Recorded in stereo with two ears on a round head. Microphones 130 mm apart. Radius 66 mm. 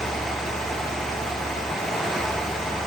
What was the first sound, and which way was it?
Only background noise.